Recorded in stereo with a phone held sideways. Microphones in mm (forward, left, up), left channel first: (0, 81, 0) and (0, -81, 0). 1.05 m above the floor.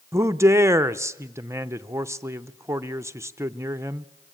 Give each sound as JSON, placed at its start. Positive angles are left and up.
{"t": 0.1, "sound": "a man speaking", "side_deg": -15, "distance_m": 0.6}